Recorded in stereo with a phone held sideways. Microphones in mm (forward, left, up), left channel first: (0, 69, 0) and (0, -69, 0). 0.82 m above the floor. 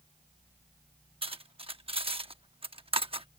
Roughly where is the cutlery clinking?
Right.